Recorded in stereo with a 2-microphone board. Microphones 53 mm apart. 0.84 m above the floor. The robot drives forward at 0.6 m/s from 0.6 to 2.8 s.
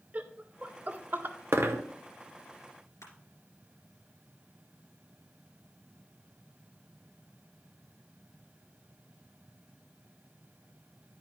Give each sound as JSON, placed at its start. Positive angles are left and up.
{"t": 0.1, "sound": "laughter", "side_deg": -30, "distance_m": 0.7}
{"t": 1.5, "sound": "a dropped coin", "side_deg": -50, "distance_m": 0.7}
{"t": 3.0, "sound": "crushing", "side_deg": 75, "distance_m": 2.5}